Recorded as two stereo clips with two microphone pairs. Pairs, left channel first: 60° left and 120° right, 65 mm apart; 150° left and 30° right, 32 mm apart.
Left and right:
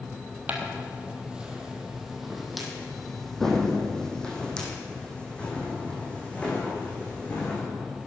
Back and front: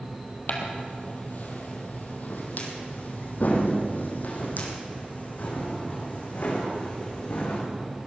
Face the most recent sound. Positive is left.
turn(degrees=125)